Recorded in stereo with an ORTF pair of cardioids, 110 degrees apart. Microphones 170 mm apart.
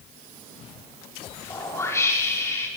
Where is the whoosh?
15° left, 6 m.